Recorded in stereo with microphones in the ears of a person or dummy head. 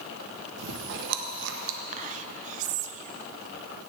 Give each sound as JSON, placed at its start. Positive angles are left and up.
{"t": 0.6, "sound": "chewing", "side_deg": -70, "distance_m": 1.0}
{"t": 1.9, "sound": "whispering", "side_deg": -45, "distance_m": 0.9}